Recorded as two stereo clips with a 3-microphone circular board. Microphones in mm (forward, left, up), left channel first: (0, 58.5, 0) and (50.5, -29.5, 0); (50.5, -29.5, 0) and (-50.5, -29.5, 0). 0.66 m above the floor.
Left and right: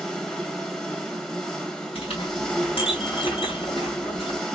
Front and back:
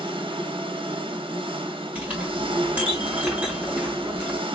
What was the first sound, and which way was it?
An engine running, 160° right.